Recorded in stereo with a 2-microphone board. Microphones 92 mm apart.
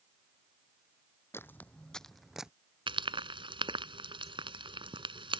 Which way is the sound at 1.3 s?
30° left (ahead or behind).